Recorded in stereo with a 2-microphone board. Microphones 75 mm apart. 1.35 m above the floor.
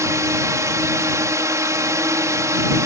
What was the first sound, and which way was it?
A drone, 40° right (ahead or behind).